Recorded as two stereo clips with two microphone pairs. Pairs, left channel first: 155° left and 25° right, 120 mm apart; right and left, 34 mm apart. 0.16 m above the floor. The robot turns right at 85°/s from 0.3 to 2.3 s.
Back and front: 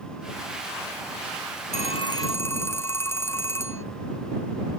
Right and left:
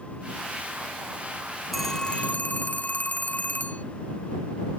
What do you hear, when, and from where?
1.7 s a phone ringing: straight behind; by 3.9 s 135° right